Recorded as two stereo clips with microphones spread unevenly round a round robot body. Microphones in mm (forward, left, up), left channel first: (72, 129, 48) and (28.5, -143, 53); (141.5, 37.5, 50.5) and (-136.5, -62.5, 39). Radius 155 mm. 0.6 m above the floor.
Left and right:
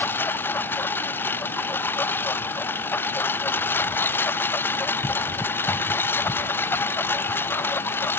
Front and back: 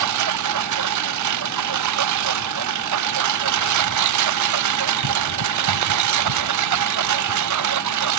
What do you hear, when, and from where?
0.0 s a lawn mower: 165° left